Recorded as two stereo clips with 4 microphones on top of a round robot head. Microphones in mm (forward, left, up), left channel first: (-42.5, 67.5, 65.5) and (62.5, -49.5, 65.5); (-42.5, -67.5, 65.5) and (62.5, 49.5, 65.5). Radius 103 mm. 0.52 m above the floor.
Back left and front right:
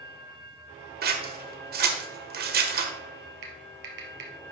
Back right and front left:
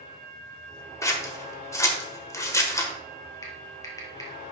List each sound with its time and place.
1.0 s scissors: 60° right, 1.4 m
3.4 s typing on a keyboard: 60° right, 2 m